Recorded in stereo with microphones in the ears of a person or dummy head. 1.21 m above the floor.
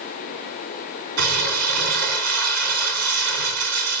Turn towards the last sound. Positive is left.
turn(degrees=-80)